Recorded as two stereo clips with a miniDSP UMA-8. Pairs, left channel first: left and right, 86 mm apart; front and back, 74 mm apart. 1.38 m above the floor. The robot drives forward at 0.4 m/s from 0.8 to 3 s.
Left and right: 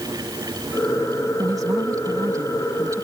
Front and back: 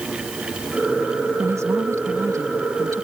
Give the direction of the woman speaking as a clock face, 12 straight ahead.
4 o'clock.